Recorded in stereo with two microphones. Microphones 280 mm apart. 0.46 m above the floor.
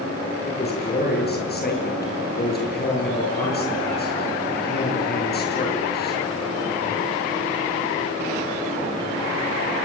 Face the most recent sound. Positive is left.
turn(degrees=35)  # may be behind; listen again after turning